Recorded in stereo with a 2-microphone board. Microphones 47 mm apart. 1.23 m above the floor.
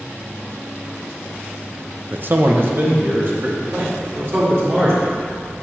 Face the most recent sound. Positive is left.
turn(degrees=-60)  # may be behind; listen again after turning